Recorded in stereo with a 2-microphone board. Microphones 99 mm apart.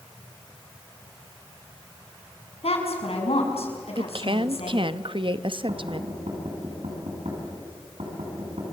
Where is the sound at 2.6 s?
85° left, 6 m.